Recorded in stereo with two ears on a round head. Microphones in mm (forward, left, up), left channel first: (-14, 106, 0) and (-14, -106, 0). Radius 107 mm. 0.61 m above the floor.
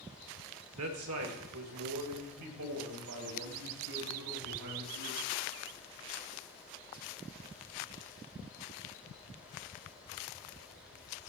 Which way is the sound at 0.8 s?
60° right (ahead or behind).